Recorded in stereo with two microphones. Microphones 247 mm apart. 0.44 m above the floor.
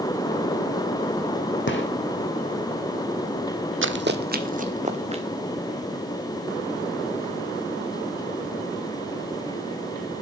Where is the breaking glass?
I don't hear breaking glass.